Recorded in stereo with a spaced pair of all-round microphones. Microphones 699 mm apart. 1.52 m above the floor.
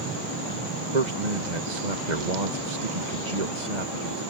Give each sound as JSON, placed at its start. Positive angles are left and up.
{"t": 0.9, "sound": "a man speaking", "side_deg": -80}